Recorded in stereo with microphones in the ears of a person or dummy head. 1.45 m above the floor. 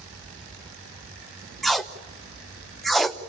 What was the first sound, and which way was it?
Tape being pulled, centre (ahead or behind).